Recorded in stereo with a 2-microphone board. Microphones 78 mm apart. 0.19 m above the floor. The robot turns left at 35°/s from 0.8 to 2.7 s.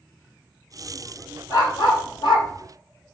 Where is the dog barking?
60° left (ahead or behind), 2.0 m; by 2.5 s 75° left (ahead or behind), 2.0 m.